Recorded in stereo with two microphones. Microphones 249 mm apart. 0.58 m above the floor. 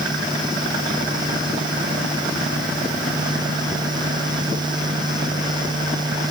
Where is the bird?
I don't hear a bird.